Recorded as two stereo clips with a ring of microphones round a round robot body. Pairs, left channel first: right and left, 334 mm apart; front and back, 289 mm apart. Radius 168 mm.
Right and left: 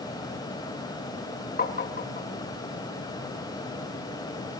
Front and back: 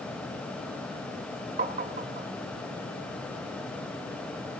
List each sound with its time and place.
1.6 s tapping: 135° right, 1.4 m